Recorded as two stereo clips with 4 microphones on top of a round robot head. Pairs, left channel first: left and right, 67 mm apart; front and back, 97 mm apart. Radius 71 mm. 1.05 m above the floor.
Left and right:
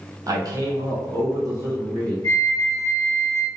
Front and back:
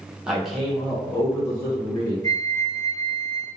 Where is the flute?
40° left, 1.0 m.